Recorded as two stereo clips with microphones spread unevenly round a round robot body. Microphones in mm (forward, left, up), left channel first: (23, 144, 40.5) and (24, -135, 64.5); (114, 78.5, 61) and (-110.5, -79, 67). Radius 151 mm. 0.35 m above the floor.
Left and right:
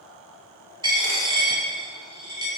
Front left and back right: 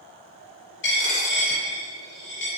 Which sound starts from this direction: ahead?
A dropped coin, at 0.8 s.